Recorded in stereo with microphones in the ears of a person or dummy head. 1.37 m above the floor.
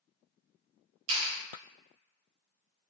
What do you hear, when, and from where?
1.1 s a clap: 80° right, 1.2 m